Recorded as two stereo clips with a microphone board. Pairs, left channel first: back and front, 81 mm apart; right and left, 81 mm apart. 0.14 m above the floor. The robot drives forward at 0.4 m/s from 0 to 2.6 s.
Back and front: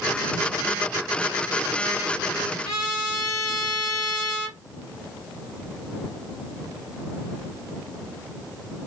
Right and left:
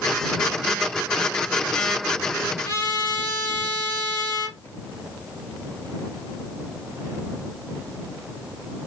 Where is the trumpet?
140° right, 2.5 m.